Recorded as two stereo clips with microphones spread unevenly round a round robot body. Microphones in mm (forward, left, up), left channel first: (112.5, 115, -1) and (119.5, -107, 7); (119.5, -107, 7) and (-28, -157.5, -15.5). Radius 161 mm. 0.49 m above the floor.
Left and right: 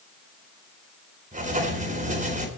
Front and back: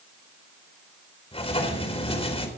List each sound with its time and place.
1.3 s writing: 35° right, 4 m